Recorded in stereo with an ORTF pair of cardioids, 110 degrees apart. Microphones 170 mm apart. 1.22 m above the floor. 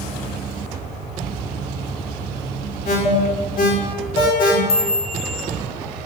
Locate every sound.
2.9 s an alarm: 65° left, 4 m
4.7 s a chime: 70° left, 4.5 m